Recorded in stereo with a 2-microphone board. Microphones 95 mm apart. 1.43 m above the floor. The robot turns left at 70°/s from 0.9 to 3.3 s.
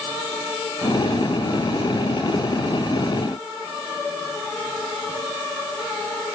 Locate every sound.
Only background noise.